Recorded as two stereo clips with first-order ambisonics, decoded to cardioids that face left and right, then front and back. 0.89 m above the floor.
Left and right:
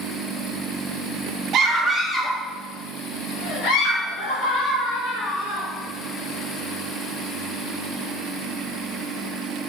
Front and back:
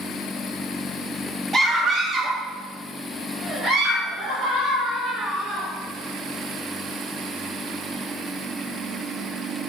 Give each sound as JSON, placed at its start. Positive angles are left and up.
{"t": 1.5, "sound": "a scream", "azimuth_deg": -120, "distance_m": 0.6}